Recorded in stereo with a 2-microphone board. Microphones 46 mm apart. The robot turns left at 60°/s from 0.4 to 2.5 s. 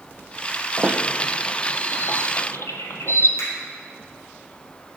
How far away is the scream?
I don't hear a scream.